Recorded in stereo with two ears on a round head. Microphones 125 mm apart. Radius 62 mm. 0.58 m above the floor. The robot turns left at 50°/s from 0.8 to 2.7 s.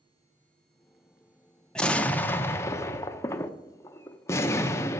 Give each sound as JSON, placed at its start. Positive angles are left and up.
{"t": 1.8, "sound": "an explosion", "side_deg": 5, "distance_m": 0.5}